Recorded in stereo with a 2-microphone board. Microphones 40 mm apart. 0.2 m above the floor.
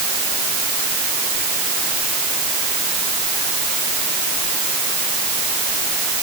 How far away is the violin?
I don't hear a violin.